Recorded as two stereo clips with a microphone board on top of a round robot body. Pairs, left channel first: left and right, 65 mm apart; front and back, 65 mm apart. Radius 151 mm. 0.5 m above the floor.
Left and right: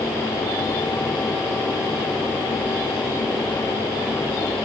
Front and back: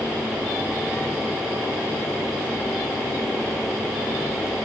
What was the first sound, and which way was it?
Only background noise.